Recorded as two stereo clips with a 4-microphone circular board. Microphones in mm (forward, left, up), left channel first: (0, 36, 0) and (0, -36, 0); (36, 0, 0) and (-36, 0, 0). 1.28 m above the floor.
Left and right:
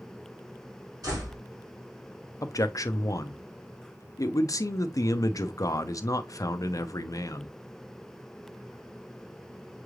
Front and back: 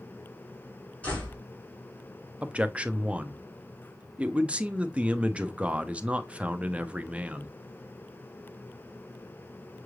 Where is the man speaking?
110° left, 0.5 m.